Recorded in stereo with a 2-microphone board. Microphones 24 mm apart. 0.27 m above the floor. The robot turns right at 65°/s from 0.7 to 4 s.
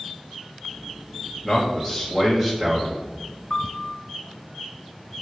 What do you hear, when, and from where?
1.4 s a man speaking: 15° left (ahead or behind), 1.3 m; by 3.1 s 15° right (ahead or behind), 1.3 m
3.5 s a piano: 110° left, 0.8 m; by 4.0 s 140° left, 0.8 m